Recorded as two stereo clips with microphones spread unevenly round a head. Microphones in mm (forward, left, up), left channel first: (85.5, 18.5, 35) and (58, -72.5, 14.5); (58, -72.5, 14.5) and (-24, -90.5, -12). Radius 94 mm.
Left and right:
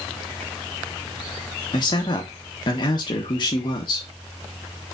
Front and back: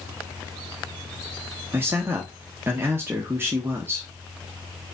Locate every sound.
1.7 s a man speaking: 130° left, 0.7 m